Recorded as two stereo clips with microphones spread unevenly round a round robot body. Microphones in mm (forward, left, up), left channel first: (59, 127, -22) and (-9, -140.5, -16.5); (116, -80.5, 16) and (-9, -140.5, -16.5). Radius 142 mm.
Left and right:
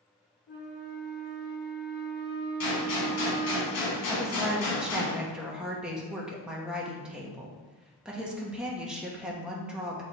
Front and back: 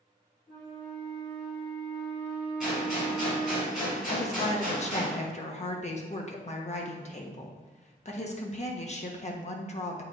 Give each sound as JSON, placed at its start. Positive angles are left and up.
{"t": 0.5, "sound": "a flute", "azimuth_deg": 90, "distance_m": 2.5}
{"t": 2.6, "sound": "a gunshot", "azimuth_deg": 115, "distance_m": 2.5}
{"t": 4.1, "sound": "a woman speaking", "azimuth_deg": -15, "distance_m": 1.1}